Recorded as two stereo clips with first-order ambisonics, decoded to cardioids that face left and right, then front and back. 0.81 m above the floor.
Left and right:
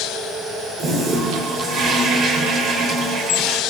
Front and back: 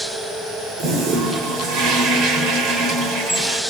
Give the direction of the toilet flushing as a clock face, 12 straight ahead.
5 o'clock.